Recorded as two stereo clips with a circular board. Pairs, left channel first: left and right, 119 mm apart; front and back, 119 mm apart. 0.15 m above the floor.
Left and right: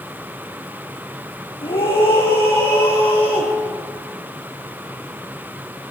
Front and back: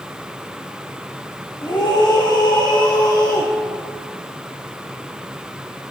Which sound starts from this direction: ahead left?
A scream, at 1.6 s.